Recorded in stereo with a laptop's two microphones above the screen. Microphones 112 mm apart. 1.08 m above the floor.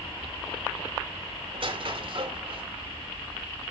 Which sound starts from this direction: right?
A squeak, at 1.5 s.